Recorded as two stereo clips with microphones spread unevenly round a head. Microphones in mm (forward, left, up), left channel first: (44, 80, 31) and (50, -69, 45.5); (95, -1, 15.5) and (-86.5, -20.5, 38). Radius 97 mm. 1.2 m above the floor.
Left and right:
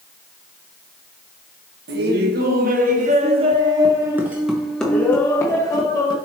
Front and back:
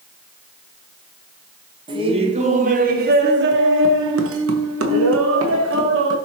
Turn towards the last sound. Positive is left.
turn(degrees=160)